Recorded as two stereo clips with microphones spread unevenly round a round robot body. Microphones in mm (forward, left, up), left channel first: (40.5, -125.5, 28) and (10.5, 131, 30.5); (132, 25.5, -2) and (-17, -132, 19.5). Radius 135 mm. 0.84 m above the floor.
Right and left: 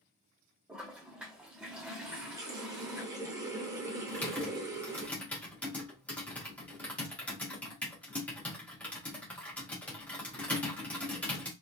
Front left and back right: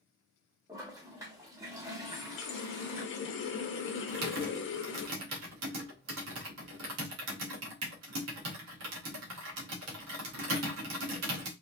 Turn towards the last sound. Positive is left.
turn(degrees=-170)